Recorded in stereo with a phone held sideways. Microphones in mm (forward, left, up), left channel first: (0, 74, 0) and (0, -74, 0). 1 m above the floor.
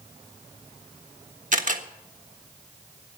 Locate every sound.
1.5 s a camera shutter: 60° right (ahead or behind), 1.4 m